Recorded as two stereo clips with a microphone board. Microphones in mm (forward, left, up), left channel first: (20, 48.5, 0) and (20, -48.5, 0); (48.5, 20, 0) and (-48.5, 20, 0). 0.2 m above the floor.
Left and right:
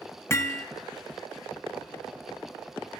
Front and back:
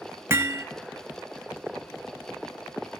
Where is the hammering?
130° left, 0.6 m.